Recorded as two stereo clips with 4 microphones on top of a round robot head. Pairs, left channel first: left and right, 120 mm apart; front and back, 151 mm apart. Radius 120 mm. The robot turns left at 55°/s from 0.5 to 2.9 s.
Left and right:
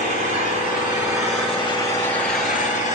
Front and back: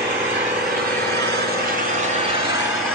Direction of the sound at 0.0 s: 125° right.